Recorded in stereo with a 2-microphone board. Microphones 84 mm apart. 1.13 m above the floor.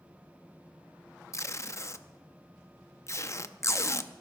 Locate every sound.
1.3 s tape being pulled: 40° left (ahead or behind), 0.6 m